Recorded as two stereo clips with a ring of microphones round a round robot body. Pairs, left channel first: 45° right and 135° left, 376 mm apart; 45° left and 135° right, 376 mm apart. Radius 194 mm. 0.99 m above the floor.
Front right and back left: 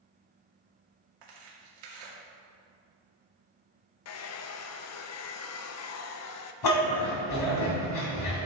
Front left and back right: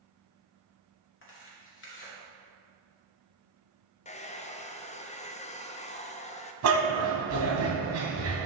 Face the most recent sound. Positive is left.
turn(degrees=-85)